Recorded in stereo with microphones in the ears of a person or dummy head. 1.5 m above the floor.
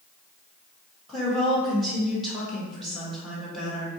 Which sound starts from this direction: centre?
A woman speaking, at 1.1 s.